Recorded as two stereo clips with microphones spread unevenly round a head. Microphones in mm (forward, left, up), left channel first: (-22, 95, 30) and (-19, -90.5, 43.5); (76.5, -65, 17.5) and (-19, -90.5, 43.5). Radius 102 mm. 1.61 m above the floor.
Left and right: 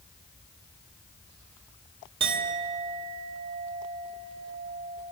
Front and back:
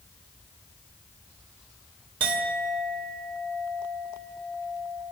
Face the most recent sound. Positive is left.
turn(degrees=-145)